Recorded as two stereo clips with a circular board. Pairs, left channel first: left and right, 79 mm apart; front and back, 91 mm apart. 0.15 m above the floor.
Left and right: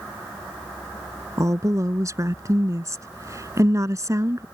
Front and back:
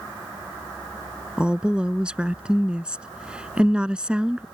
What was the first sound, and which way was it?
A woman speaking, 105° right.